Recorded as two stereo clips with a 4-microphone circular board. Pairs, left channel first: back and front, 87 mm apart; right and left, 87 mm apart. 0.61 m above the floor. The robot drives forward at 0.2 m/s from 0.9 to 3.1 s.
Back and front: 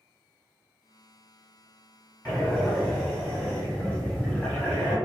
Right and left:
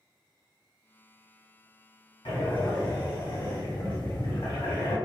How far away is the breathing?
About 1.6 m.